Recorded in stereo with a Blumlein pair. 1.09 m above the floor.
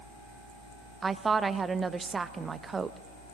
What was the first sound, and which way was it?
A woman speaking, 15° right.